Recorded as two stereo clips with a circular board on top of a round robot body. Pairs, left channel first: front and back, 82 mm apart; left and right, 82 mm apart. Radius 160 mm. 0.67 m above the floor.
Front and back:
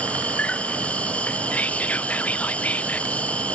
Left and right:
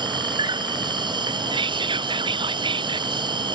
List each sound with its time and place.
0.0 s an insect: 75° right
1.5 s whispering: 75° right